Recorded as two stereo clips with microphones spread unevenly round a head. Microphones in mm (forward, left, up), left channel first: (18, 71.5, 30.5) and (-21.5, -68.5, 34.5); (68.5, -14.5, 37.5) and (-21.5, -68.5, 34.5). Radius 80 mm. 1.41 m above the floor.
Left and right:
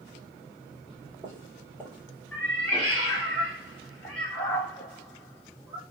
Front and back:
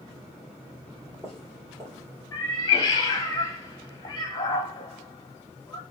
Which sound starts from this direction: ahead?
A cat meowing, at 2.3 s.